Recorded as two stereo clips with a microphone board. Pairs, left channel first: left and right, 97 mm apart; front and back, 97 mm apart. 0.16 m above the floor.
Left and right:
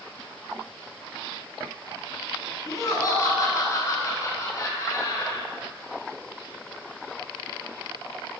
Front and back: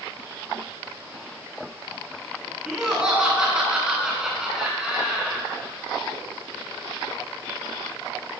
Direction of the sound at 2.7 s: 105° left.